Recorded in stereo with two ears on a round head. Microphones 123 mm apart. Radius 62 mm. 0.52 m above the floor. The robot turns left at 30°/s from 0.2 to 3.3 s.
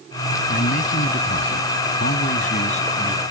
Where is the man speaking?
120° left; by 3.2 s 40° left.